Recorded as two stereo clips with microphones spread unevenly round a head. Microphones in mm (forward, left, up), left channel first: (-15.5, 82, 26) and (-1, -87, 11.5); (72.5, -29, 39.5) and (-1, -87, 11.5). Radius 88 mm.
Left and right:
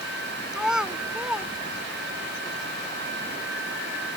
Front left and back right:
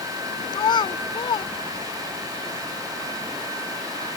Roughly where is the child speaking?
Ahead.